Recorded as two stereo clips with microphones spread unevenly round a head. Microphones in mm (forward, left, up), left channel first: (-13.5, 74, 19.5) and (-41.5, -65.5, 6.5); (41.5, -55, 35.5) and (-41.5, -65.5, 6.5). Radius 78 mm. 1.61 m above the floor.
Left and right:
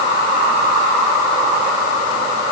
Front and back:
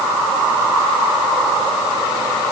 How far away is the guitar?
No guitar in this recording.